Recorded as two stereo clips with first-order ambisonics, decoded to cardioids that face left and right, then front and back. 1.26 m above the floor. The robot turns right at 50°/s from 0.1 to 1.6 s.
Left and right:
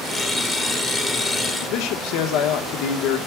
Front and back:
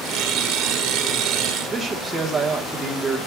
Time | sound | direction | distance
1.6 | a man speaking | 100° left | 1.5 m